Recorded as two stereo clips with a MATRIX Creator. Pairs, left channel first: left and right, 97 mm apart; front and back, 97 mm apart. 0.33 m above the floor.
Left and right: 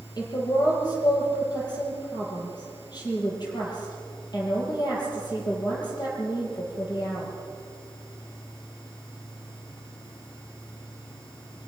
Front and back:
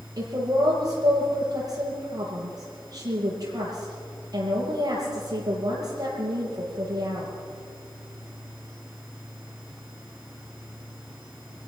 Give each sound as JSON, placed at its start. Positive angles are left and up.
{"t": 0.2, "sound": "a woman speaking", "azimuth_deg": 130, "distance_m": 9.5}